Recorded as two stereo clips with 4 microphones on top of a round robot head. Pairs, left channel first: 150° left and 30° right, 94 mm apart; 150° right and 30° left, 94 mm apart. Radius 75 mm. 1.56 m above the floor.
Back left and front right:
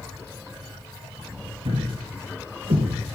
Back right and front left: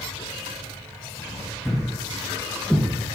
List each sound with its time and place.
1.6 s a thud: 65° right, 5 m